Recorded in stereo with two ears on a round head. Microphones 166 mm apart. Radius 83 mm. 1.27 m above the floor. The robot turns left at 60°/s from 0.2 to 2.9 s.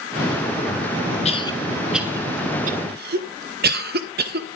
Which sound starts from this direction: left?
A cough, at 1.2 s.